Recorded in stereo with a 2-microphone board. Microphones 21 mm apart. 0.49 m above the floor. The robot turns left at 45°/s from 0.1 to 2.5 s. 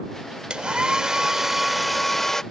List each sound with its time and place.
0.5 s a hair dryer: 115° right; by 2.4 s 155° left